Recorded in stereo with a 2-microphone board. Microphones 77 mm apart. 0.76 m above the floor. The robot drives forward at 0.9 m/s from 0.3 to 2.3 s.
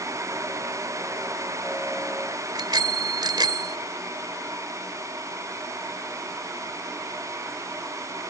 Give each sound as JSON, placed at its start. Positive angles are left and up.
{"t": 2.5, "sound": "a bicycle bell", "side_deg": -70}